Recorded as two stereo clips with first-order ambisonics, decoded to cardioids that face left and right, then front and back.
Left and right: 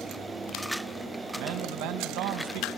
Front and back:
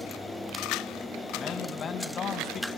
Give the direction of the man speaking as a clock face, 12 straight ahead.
2 o'clock.